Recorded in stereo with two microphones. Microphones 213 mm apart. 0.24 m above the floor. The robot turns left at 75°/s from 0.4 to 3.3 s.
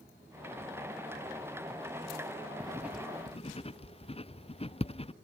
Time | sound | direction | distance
2.6 | writing | 25° right (ahead or behind) | ?